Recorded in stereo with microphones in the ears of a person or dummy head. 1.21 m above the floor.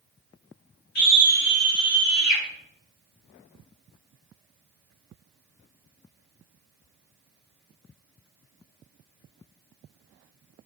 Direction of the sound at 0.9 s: 40° left (ahead or behind).